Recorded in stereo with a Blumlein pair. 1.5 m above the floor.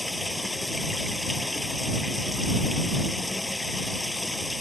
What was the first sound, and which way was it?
Running water, 5° left.